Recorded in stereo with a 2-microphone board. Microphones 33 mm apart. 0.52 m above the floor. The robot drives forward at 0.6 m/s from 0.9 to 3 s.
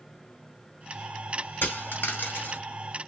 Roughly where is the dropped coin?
Left.